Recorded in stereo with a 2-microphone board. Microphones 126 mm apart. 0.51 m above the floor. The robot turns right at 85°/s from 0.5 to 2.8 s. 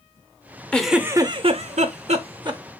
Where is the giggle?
170° left, 0.6 m; by 2.6 s 30° right, 0.6 m.